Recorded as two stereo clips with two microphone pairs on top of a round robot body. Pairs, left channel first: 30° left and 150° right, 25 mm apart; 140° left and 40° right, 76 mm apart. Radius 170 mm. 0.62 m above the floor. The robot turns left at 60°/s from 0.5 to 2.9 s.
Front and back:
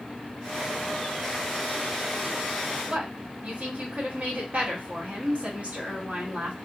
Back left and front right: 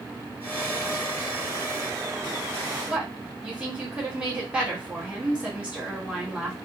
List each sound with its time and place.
2.9 s a woman speaking: 115° right, 2 m